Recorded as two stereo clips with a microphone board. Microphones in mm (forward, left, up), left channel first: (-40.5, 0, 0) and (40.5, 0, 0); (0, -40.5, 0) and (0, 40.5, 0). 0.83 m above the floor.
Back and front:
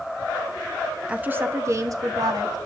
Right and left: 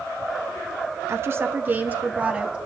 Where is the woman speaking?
65° left, 0.8 m; by 2.6 s 15° left, 1.4 m.